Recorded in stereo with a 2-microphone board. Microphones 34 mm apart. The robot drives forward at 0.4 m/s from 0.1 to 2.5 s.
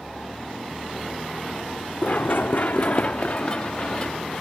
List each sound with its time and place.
2.0 s running footsteps: 50° left (ahead or behind), 0.6 m; by 4.4 s 25° left (ahead or behind), 1.6 m